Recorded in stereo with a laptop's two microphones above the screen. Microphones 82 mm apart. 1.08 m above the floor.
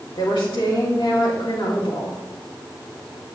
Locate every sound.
0.1 s a woman speaking: 85° left, 2.5 m